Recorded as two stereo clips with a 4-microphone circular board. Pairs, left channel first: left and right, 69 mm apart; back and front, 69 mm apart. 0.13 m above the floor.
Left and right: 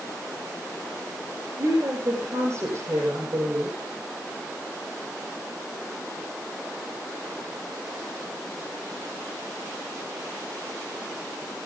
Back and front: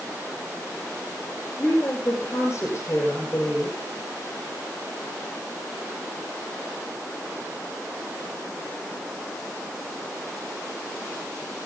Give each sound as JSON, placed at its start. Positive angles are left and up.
{"t": 1.6, "sound": "a woman speaking", "azimuth_deg": -125, "distance_m": 5.5}